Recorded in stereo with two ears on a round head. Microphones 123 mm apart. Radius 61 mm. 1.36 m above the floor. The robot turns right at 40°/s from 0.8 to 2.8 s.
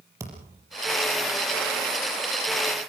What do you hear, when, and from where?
0.2 s a thud: 25° right (ahead or behind), 5.5 m